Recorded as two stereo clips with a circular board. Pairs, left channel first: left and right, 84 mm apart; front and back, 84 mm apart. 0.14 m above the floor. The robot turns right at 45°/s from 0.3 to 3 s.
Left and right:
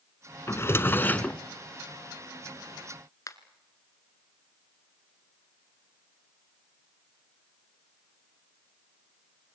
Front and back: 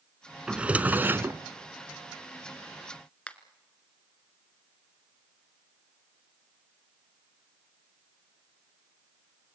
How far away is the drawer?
About 0.9 m.